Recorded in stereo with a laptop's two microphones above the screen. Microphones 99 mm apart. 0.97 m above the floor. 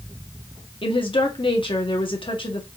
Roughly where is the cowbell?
No cowbell in this recording.